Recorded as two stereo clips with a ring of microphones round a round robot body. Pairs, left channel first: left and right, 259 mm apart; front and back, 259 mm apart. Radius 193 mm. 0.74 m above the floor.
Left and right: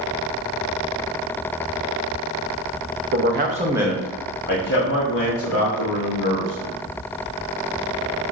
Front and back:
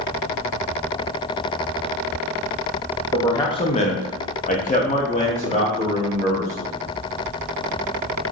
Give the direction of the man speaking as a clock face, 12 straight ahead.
3 o'clock.